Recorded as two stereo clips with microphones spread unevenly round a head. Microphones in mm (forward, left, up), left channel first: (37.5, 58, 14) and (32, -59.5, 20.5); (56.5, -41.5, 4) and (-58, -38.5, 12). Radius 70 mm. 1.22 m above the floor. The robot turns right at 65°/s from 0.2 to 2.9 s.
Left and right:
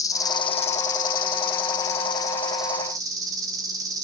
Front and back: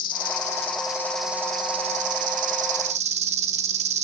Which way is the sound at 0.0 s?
25° left.